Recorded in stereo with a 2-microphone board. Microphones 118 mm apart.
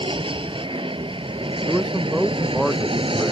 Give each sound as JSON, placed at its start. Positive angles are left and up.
{"t": 0.0, "sound": "an aircraft", "side_deg": -50}
{"t": 1.7, "sound": "a man speaking", "side_deg": -5}